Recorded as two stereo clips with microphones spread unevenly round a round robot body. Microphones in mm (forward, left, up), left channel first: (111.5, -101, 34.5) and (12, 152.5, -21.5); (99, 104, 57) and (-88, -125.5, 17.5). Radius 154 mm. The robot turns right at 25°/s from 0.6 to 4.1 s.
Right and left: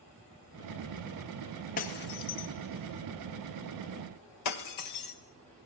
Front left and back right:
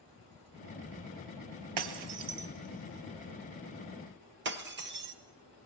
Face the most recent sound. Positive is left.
turn(degrees=-75)